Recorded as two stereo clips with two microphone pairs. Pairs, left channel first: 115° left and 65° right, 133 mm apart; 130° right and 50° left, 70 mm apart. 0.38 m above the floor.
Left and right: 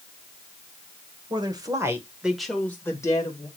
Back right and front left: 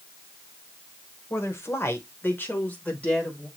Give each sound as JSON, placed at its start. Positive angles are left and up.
{"t": 1.3, "sound": "a woman speaking", "azimuth_deg": -100, "distance_m": 1.2}